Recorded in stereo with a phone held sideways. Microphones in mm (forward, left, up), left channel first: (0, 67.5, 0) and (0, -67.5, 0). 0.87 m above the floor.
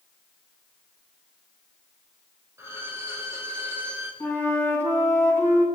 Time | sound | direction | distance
2.6 | a violin | 20° right (ahead or behind) | 3.5 m
4.2 | a flute | 15° left (ahead or behind) | 8.5 m